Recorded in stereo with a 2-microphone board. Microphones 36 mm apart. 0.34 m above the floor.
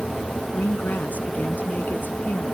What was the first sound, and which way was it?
A woman speaking, 55° left (ahead or behind).